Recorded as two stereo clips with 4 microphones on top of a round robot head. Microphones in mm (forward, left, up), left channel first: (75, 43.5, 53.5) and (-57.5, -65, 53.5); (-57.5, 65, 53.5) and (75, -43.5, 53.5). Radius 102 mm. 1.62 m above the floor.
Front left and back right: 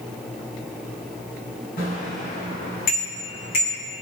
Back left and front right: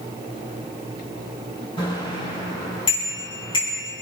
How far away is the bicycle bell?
About 9 m.